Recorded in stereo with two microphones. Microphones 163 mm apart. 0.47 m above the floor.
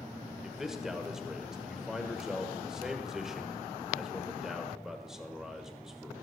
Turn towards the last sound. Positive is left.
turn(degrees=-5)  # may be behind; listen again after turning